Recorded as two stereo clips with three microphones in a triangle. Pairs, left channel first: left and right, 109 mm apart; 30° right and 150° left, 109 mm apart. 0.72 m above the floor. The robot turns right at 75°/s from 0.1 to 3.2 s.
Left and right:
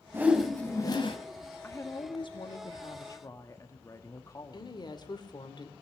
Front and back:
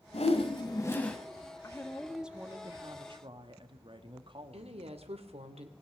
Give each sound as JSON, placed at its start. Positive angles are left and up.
{"t": 0.1, "sound": "a whoosh", "azimuth_deg": -20, "distance_m": 1.9}
{"t": 1.6, "sound": "a woman speaking", "azimuth_deg": 25, "distance_m": 1.3}
{"t": 4.5, "sound": "a woman speaking", "azimuth_deg": 135, "distance_m": 2.0}